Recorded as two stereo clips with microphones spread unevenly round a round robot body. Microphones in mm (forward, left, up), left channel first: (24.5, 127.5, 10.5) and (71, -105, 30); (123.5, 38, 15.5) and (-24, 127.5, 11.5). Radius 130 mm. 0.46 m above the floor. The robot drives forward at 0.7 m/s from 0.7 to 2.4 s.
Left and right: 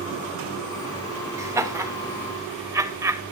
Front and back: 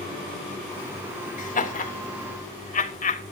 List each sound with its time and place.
1.4 s laughter: straight ahead, 3.5 m